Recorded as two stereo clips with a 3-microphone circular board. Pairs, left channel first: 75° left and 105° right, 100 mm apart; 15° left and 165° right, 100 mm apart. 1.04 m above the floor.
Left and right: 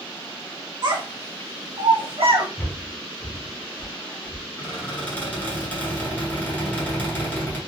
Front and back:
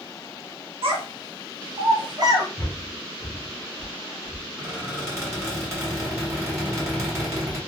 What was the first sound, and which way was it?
A child speaking, 150° right.